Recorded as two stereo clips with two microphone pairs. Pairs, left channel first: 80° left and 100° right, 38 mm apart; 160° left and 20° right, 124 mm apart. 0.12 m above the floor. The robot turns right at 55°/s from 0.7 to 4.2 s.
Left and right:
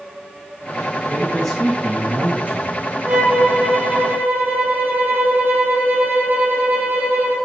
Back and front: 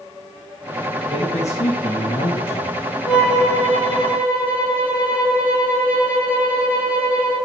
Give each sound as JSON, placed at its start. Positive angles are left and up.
{"t": 1.1, "sound": "a man speaking", "azimuth_deg": 125, "distance_m": 5.5}
{"t": 3.0, "sound": "a violin", "azimuth_deg": -160, "distance_m": 5.5}